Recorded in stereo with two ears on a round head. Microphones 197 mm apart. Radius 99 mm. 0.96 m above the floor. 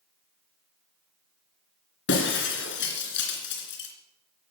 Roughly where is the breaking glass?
Left.